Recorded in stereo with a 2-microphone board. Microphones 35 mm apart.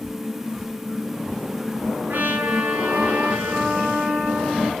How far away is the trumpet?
About 6.5 m.